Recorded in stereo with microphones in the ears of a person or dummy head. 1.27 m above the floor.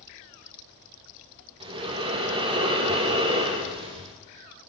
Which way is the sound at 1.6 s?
25° right (ahead or behind).